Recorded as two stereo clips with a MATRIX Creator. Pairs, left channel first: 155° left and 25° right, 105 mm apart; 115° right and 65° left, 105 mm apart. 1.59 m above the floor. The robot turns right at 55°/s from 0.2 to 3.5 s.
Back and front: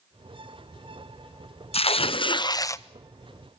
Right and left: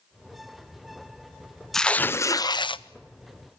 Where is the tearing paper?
160° left, 0.6 m; by 2.8 s 140° right, 0.6 m.